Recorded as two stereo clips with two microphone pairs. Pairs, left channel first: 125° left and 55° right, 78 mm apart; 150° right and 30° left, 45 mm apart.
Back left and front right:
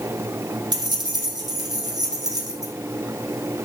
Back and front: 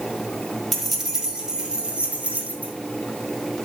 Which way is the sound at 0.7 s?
60° right.